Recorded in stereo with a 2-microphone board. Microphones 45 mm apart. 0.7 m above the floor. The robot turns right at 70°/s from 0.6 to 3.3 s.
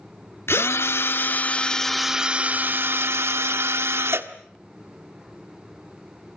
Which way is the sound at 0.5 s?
85° left.